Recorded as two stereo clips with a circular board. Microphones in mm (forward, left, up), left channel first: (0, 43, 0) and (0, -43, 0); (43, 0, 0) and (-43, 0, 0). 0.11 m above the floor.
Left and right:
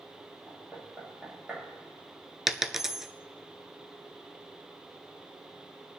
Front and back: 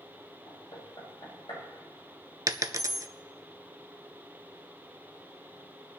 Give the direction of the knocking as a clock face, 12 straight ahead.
12 o'clock.